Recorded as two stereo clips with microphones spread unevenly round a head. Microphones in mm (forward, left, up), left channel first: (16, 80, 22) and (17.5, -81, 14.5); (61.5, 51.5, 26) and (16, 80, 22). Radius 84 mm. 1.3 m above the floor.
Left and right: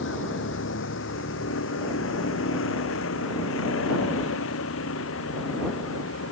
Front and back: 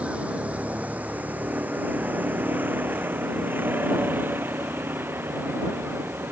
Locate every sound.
0.0 s a vehicle: 80° left; by 6.3 s 100° left